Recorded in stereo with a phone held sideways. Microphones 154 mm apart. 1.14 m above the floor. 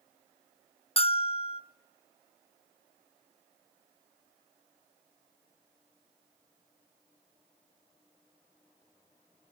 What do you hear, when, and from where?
1.0 s a bell: 40° left (ahead or behind), 0.6 m